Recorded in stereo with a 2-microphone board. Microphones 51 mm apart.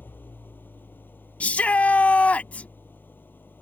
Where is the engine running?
40° left (ahead or behind).